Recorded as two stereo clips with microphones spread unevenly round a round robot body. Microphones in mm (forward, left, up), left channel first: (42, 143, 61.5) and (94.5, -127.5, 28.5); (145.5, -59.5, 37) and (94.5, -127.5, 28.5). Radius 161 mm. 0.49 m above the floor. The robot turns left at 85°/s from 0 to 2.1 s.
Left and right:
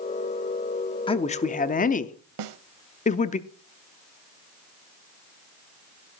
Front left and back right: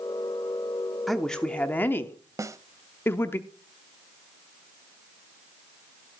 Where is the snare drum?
70° right, 0.7 m.